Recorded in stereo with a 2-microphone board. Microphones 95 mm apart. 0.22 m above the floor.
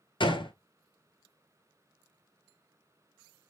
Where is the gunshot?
65° left (ahead or behind), 0.7 m.